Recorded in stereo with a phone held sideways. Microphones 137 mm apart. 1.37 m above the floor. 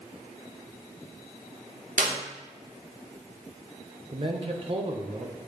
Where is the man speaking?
45° right (ahead or behind), 1.3 m.